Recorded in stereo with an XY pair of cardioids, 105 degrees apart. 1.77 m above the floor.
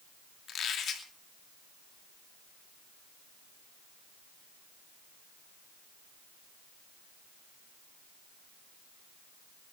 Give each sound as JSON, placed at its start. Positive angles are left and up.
{"t": 0.5, "sound": "a squeak", "azimuth_deg": 60, "distance_m": 2.5}